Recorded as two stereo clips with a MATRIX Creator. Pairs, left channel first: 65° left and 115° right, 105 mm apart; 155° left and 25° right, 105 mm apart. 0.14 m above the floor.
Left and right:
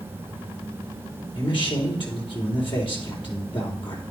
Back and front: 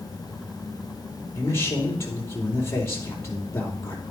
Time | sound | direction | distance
1.3 | a man speaking | 95° left | 4.5 m